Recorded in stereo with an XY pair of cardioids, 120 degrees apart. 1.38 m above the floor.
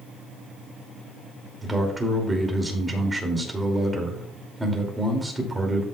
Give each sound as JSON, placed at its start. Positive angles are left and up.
{"t": 1.6, "sound": "a man speaking", "azimuth_deg": -15, "distance_m": 2.5}